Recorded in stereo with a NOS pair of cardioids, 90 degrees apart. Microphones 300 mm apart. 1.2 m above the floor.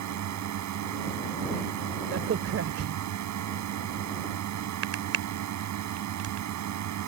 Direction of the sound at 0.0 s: 70° right.